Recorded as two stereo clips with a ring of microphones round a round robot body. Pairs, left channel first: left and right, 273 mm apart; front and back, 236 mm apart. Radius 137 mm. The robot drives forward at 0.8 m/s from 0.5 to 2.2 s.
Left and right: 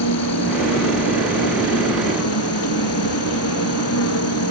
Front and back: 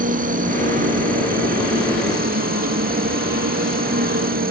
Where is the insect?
125° left; by 4.5 s 130° left.